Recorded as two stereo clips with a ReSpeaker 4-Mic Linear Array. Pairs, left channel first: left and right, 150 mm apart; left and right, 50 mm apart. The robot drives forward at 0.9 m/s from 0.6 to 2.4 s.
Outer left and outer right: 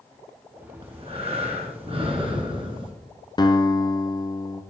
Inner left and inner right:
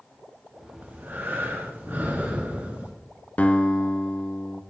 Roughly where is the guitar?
Left.